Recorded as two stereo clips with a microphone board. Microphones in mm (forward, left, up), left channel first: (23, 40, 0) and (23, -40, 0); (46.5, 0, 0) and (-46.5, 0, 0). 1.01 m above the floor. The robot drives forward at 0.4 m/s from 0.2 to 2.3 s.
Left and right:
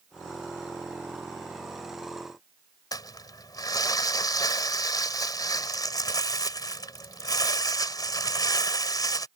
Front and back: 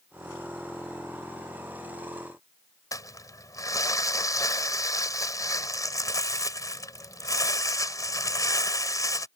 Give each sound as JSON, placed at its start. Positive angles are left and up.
{"t": 2.9, "sound": "crumpling", "azimuth_deg": 50}